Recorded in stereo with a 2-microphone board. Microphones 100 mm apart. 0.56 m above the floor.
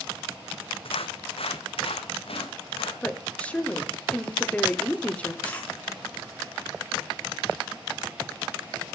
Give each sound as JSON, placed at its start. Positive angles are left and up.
{"t": 0.8, "sound": "footsteps", "side_deg": 65, "distance_m": 1.2}
{"t": 3.0, "sound": "a woman speaking", "side_deg": 15, "distance_m": 1.6}
{"t": 5.4, "sound": "a dropped coin", "side_deg": 15, "distance_m": 3.5}